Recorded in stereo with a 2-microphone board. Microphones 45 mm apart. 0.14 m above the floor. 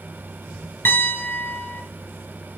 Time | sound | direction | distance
0.8 | a piano | 55° left (ahead or behind) | 1.3 m